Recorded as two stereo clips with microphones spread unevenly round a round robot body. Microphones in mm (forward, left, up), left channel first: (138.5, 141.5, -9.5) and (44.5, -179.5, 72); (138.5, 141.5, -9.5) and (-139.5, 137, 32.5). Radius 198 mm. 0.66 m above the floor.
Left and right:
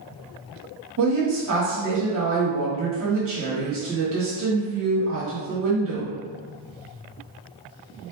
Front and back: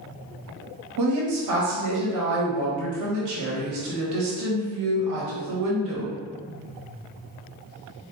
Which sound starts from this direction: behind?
A woman speaking, at 1.0 s.